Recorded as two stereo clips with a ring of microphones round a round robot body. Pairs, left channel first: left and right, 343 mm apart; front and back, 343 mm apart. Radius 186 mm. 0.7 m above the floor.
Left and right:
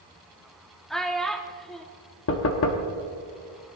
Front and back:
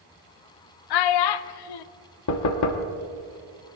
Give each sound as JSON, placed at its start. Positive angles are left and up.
{"t": 0.9, "sound": "a child speaking", "azimuth_deg": 0, "distance_m": 0.5}
{"t": 2.3, "sound": "knocking", "azimuth_deg": 40, "distance_m": 1.0}